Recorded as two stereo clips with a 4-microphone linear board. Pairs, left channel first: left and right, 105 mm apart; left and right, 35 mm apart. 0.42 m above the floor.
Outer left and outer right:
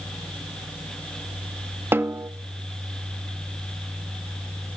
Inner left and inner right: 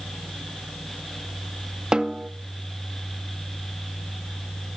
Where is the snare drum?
20° right (ahead or behind), 0.8 m.